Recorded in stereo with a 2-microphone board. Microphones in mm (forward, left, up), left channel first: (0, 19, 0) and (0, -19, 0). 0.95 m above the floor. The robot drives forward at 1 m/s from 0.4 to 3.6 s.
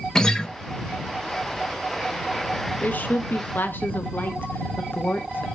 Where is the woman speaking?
50° left (ahead or behind), 1.3 m; by 5.5 s 60° left (ahead or behind), 1.1 m.